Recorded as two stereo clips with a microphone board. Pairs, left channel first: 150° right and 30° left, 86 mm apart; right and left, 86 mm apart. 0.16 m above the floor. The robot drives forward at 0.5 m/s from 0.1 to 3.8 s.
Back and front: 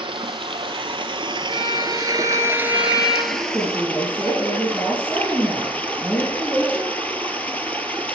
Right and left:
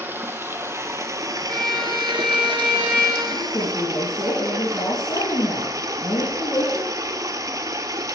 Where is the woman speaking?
65° right, 5 m.